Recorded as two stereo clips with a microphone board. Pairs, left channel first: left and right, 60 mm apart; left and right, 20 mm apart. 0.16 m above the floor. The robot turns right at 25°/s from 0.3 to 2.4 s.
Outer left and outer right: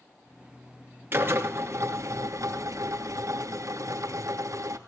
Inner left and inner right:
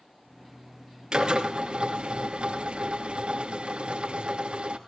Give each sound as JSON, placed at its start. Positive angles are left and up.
{"t": 1.1, "sound": "a drill", "azimuth_deg": -140, "distance_m": 2.5}